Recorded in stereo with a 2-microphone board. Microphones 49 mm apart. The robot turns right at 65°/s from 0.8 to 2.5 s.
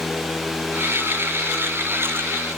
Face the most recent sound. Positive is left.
No sound to turn to.